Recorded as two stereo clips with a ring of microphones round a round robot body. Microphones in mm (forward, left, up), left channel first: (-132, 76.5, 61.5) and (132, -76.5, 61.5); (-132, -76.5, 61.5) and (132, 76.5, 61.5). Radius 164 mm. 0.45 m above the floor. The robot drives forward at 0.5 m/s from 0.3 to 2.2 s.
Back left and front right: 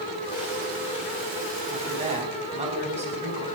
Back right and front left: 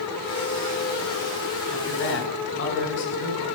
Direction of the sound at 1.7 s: 95° right.